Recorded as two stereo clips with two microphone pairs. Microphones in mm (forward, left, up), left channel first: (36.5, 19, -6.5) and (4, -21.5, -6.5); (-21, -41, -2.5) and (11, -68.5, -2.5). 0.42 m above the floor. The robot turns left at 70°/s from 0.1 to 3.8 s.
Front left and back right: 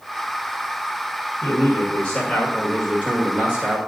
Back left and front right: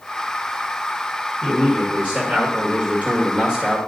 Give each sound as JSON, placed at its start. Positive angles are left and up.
{"t": 1.4, "sound": "a man speaking", "azimuth_deg": 50, "distance_m": 1.7}